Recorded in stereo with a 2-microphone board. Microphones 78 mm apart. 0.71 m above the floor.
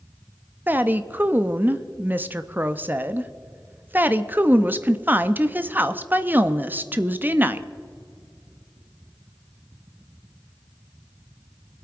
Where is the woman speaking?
25° right (ahead or behind), 0.6 m.